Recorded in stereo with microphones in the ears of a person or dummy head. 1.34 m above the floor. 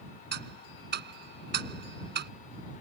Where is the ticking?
55° right (ahead or behind).